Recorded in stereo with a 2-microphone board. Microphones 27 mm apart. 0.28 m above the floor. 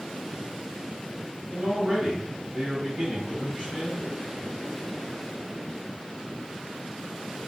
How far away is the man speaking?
About 1.3 m.